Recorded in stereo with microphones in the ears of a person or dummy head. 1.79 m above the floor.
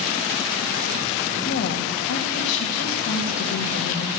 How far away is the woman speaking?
About 2.5 m.